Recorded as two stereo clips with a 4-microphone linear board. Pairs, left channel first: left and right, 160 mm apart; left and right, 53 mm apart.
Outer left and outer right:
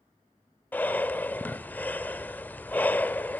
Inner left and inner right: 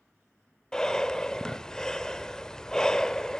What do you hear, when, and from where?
0.7 s breathing: 10° left (ahead or behind), 0.6 m